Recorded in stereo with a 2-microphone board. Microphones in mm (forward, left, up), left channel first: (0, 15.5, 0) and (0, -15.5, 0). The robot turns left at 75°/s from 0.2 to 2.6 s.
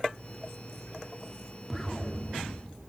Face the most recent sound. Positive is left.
turn(degrees=120)